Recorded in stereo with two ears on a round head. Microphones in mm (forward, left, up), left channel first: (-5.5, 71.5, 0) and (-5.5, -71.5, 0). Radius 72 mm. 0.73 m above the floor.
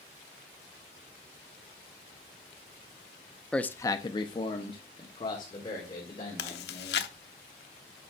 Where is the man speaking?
5° left (ahead or behind), 0.5 m; by 7.1 s 30° left (ahead or behind), 3 m.